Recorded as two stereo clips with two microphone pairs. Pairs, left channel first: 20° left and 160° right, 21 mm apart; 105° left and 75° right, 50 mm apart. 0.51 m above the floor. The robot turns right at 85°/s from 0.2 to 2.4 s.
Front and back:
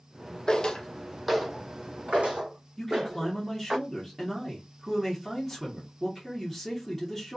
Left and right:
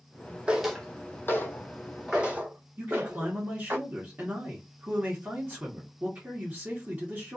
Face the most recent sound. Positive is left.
turn(degrees=-70)